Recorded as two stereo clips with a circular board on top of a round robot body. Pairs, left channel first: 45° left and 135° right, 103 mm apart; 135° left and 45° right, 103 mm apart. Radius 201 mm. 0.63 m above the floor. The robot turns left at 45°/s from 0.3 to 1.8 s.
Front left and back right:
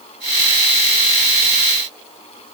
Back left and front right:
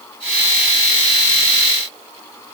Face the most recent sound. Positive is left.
No sound to turn to.